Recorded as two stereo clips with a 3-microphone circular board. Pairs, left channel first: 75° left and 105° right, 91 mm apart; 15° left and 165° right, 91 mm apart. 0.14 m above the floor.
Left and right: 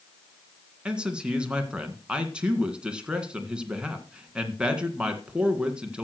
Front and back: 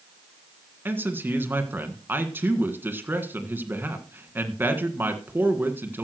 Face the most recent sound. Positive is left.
turn(degrees=-170)